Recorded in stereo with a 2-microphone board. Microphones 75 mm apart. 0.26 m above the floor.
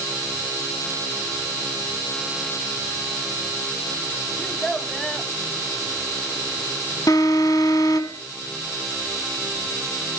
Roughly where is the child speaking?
Centre.